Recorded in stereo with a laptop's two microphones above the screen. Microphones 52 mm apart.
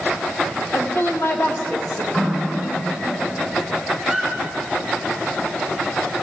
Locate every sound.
0.7 s a woman speaking: 55° left (ahead or behind), 1.4 m
2.1 s a running tap: 25° left (ahead or behind), 3.5 m
4.0 s a squeak: 5° right (ahead or behind), 4 m